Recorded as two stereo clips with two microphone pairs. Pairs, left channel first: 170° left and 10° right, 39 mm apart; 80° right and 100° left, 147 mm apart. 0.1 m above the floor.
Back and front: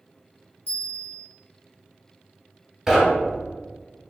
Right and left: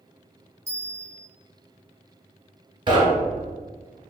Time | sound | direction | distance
0.7 | a bell | 25° left | 1.5 m
2.9 | knocking | 65° left | 1.0 m